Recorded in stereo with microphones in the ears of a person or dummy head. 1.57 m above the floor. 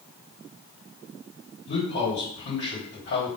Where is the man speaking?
40° left (ahead or behind), 2.5 m.